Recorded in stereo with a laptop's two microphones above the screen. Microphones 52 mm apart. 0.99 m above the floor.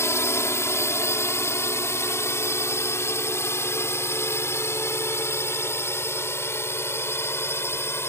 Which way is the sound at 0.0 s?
60° left (ahead or behind).